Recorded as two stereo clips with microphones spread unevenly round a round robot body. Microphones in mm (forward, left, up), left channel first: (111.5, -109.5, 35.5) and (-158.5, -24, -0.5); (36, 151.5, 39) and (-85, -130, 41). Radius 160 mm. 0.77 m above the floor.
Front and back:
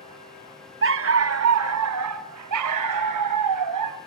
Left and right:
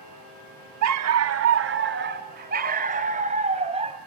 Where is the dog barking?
150° right, 1.1 m; by 4.0 s 175° left, 2.5 m.